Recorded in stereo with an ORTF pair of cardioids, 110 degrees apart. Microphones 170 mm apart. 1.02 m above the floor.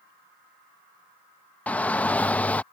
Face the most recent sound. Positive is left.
turn(degrees=10)